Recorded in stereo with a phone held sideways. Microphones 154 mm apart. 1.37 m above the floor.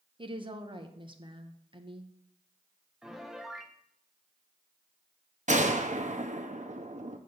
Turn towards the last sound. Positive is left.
turn(degrees=-50)  # may be behind; listen again after turning